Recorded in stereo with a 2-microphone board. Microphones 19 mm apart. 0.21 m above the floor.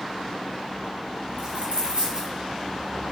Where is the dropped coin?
65° right (ahead or behind), 4.5 m.